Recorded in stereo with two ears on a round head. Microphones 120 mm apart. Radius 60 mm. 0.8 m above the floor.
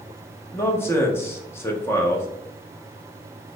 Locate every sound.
0.5 s a man speaking: 20° left (ahead or behind), 0.6 m